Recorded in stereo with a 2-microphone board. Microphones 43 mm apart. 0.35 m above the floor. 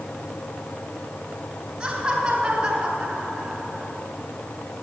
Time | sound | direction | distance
1.8 | laughter | 15° right (ahead or behind) | 3 m